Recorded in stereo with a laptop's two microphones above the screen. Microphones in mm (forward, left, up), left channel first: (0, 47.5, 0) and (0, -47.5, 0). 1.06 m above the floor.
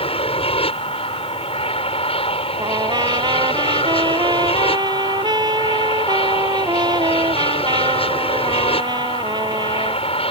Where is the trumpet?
45° right (ahead or behind).